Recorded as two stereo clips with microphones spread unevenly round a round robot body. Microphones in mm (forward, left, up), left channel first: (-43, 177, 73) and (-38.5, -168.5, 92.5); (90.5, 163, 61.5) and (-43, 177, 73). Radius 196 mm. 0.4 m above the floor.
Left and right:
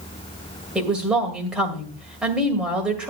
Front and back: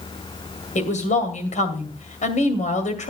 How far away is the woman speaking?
About 2.5 m.